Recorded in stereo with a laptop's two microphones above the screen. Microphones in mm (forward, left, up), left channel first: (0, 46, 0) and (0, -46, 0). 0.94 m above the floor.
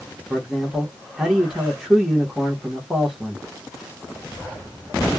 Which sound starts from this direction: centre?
A man speaking, at 0.3 s.